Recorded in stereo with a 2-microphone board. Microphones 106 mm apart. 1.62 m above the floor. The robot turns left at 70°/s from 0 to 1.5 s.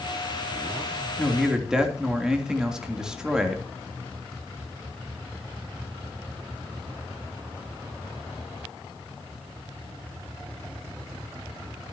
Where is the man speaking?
15° left (ahead or behind), 3 m; by 3.6 s 5° right (ahead or behind), 3 m.